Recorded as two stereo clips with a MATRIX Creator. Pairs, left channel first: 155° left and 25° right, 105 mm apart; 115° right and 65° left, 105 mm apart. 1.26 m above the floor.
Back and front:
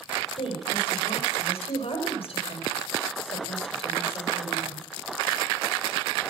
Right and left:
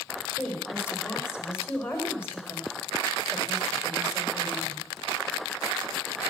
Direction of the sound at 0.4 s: Straight behind.